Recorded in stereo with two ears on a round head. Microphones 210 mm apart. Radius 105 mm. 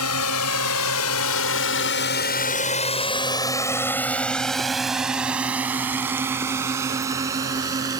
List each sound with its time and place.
0.0 s a drone: 70° left (ahead or behind); by 8.0 s 15° right (ahead or behind)